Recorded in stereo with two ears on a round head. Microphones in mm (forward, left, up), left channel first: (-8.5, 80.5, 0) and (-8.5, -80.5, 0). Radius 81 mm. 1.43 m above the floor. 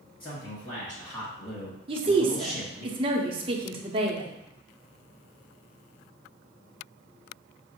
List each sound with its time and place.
0.2 s a man speaking: 25° left (ahead or behind), 2.5 m; by 2.9 s 10° right (ahead or behind), 1.0 m
1.9 s a woman speaking: 30° right (ahead or behind), 0.7 m